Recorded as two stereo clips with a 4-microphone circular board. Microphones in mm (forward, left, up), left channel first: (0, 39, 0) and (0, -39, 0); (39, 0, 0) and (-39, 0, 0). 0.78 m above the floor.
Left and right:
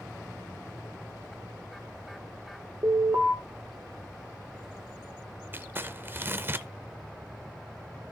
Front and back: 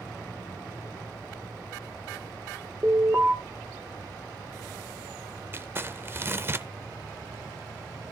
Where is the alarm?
130° right, 1.8 m.